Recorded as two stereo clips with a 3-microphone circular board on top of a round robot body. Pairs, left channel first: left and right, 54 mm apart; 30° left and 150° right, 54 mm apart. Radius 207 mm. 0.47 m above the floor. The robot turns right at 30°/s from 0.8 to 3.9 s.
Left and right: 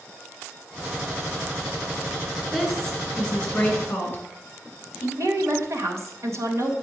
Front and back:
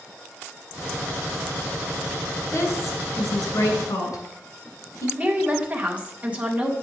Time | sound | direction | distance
2.5 | a woman speaking | 10° right | 3 m
5.2 | a woman speaking | 85° right | 2 m